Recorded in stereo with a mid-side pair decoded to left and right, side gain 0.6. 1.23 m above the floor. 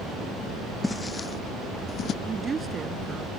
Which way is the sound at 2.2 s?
25° right.